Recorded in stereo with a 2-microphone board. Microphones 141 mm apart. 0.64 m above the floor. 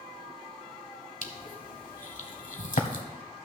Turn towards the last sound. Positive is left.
turn(degrees=60)  # may be behind; listen again after turning